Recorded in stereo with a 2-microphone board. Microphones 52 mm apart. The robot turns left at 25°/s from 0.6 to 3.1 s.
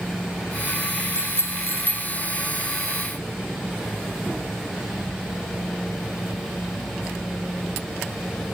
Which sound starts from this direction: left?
A bicycle bell, at 1.1 s.